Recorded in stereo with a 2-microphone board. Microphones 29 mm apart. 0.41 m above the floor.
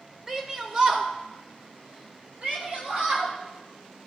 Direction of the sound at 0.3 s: 15° right (ahead or behind).